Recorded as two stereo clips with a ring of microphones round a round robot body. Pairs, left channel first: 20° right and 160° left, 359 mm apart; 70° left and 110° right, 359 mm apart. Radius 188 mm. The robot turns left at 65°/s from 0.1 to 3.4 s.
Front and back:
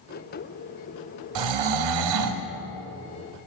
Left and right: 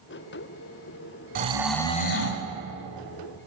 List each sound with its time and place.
1.4 s snoring: straight behind, 1.0 m; by 2.4 s 110° left, 1.0 m